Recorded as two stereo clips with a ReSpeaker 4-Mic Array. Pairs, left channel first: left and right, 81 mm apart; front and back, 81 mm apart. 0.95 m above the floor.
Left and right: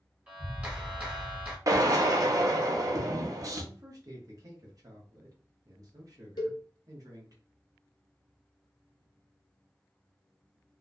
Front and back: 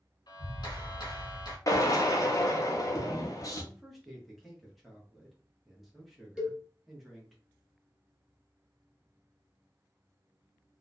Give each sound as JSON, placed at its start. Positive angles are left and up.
{"t": 0.3, "sound": "a clap", "azimuth_deg": -20, "distance_m": 1.2}
{"t": 1.7, "sound": "a drill", "azimuth_deg": -45, "distance_m": 0.6}
{"t": 3.6, "sound": "a man speaking", "azimuth_deg": -90, "distance_m": 1.0}
{"t": 6.4, "sound": "a cowbell", "azimuth_deg": 100, "distance_m": 0.8}